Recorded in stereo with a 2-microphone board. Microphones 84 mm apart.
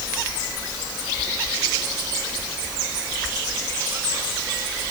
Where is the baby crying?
No baby crying in this recording.